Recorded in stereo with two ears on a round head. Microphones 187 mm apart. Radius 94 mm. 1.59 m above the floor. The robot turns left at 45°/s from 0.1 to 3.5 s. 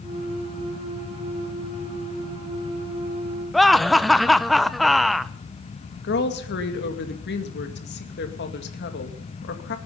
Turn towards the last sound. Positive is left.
turn(degrees=55)  # may be behind; listen again after turning